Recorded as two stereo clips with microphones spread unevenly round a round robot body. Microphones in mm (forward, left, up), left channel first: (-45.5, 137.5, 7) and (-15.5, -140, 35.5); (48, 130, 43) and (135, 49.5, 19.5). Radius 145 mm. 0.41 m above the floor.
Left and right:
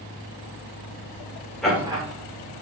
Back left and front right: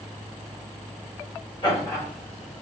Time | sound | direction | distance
1.6 | laughter | 175° left | 0.9 m